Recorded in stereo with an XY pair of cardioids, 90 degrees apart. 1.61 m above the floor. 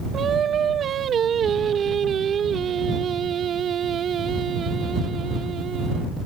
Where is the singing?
60° right.